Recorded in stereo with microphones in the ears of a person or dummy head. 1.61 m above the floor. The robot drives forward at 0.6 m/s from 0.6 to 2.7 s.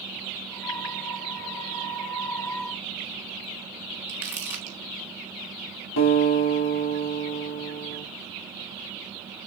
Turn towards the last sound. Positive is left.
turn(degrees=75)  # may be behind; listen again after turning